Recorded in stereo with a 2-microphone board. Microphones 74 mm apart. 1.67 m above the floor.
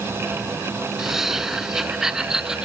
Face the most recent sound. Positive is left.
turn(degrees=-10)  # may be behind; listen again after turning